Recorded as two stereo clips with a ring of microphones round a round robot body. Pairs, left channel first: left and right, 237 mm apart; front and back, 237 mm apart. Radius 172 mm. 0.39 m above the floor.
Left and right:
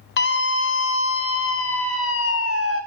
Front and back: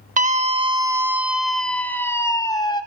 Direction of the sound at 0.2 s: 130° left.